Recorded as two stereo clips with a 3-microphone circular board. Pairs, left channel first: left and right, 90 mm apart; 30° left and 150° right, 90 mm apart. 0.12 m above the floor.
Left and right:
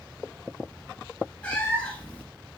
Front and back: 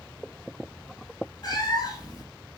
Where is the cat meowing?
20° left, 0.8 m.